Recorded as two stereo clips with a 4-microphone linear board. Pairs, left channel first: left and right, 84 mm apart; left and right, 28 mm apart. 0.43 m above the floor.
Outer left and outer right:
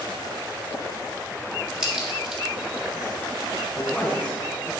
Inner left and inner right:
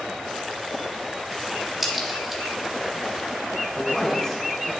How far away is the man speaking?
About 3 m.